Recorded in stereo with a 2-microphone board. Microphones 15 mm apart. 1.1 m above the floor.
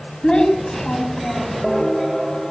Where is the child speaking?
75° left (ahead or behind), 6 m.